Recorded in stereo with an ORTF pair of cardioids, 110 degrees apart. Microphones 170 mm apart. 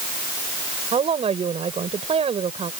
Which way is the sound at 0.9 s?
35° right.